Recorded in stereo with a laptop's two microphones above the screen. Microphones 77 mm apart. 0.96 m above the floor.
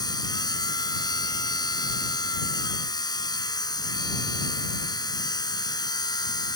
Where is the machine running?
60° left (ahead or behind).